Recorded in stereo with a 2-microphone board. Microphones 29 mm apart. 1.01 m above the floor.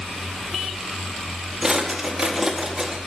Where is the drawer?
20° right (ahead or behind), 0.7 m.